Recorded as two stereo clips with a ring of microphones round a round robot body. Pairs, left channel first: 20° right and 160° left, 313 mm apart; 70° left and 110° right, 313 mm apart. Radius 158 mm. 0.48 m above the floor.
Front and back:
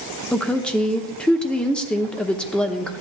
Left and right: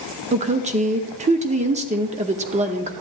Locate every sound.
0.3 s a woman speaking: 105° right, 0.7 m